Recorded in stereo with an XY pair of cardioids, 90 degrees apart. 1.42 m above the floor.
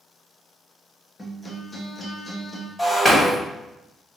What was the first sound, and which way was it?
A guitar, 30° left.